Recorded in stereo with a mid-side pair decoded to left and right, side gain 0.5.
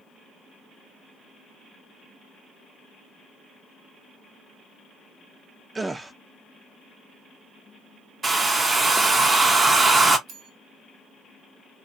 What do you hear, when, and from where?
5.8 s a gasp: 20° right, 0.5 m
8.2 s a hair dryer: 25° right, 0.6 m
10.3 s a bell: 65° right, 1.0 m